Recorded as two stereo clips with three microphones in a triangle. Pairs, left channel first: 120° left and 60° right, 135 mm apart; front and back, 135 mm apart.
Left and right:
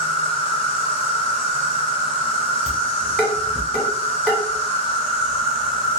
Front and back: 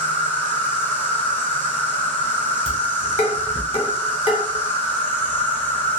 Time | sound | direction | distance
0.0 | an insect | 75° left | 0.7 m
2.7 | dishes clattering | 35° left | 1.0 m